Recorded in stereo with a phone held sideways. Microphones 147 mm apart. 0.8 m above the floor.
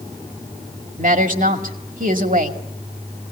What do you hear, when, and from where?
1.0 s a woman speaking: 65° right (ahead or behind), 2 m